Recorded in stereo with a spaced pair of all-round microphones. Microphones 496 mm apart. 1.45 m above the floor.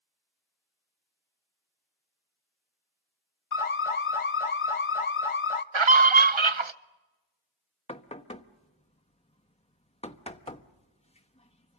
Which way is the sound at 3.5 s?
80° left.